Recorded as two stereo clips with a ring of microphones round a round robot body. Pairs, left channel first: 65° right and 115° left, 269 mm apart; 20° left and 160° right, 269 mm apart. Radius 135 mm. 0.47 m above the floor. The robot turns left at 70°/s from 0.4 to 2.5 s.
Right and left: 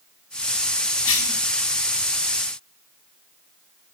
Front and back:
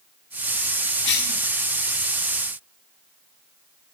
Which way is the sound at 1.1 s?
25° right.